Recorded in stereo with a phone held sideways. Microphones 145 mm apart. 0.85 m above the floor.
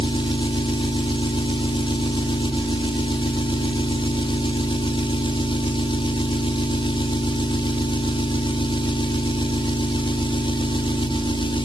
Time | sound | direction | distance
0.0 | an engine running | 35° left (ahead or behind) | 1.3 m